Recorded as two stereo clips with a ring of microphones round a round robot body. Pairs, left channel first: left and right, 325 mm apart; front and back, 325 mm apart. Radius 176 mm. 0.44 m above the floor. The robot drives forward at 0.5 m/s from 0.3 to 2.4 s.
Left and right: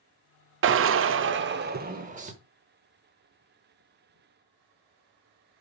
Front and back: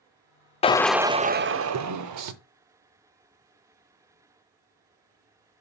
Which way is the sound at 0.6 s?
65° right.